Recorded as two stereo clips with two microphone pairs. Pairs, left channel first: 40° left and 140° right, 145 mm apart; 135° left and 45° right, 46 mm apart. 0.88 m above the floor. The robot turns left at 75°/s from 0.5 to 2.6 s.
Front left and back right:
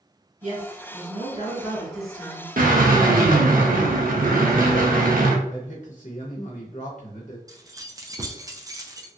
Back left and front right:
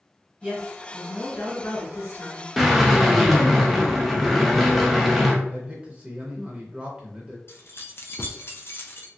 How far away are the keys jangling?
About 0.5 m.